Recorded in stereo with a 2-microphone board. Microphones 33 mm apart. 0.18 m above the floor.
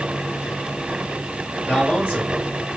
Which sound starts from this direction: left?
A man speaking, at 1.7 s.